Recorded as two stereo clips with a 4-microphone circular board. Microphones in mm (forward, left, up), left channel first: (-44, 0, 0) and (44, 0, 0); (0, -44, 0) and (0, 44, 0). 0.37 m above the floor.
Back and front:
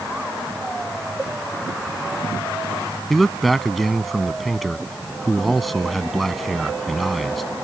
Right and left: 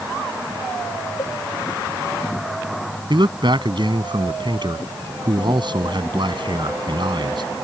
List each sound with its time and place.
1.2 s a cowbell: 70° right
3.1 s a man speaking: 90° left